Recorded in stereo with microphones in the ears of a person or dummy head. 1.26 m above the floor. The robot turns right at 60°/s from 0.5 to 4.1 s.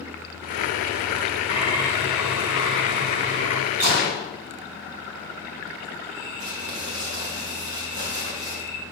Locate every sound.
1.5 s a bird: 140° left, 1.9 m; by 3.6 s 95° right, 1.9 m
3.8 s a gunshot: 45° right (ahead or behind), 3 m; by 4.3 s 65° right (ahead or behind), 3 m
6.4 s crumpling: 75° right (ahead or behind), 2.5 m